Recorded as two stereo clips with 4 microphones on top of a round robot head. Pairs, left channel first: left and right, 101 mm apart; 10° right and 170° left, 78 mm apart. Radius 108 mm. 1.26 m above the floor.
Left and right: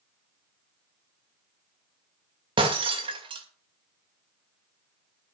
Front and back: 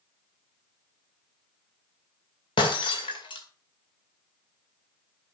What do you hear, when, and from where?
2.6 s breaking glass: 45° right, 2 m